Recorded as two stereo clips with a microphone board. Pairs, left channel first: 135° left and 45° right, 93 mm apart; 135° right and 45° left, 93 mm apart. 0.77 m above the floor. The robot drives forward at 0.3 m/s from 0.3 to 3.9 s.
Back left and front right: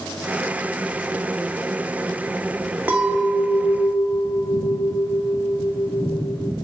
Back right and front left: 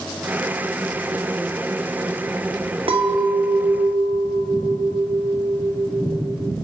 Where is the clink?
25° left, 0.7 m; by 6.5 s 45° left, 0.5 m.